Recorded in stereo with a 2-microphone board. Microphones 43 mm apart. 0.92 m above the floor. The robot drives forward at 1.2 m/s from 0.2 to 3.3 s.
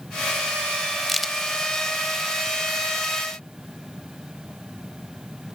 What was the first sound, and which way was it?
A crack, centre (ahead or behind).